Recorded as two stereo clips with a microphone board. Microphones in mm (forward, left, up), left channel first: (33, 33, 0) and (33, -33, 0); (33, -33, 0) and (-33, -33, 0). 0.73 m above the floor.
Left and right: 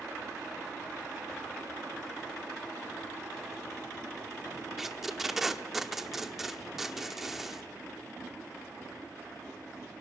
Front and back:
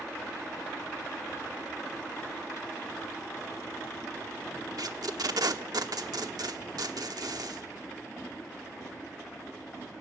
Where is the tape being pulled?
175° right, 1.0 m.